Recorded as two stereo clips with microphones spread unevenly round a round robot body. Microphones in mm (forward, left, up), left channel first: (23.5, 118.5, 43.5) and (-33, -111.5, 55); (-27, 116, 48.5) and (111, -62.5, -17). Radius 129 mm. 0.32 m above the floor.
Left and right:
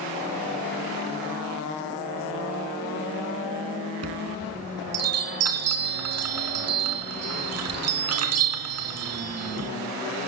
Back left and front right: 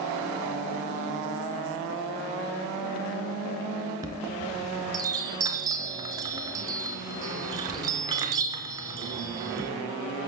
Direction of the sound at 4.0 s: 125° right.